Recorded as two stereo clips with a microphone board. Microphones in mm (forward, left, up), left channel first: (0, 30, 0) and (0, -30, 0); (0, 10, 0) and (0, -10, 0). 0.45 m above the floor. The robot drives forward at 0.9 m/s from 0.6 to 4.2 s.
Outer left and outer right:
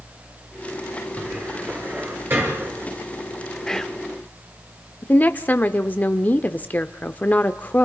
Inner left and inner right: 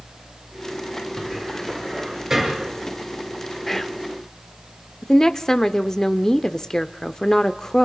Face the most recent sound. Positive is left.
turn(degrees=30)  # may be behind; listen again after turning